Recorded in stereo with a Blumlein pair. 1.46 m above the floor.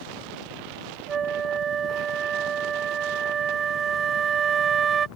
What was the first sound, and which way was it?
A flute, 20° right.